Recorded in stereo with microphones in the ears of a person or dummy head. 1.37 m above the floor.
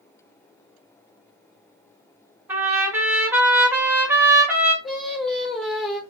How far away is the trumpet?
About 0.6 m.